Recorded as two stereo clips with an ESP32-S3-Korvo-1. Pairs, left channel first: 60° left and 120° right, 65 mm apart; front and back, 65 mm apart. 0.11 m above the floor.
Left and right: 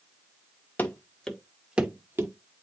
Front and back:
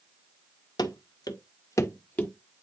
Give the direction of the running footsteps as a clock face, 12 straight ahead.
12 o'clock.